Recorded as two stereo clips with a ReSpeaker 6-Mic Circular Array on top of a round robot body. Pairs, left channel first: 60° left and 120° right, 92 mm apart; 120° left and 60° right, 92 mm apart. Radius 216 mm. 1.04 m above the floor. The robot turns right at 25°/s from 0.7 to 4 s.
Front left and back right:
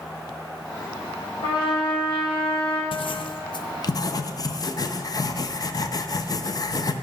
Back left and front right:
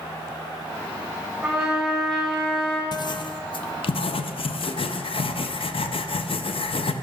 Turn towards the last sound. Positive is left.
turn(degrees=105)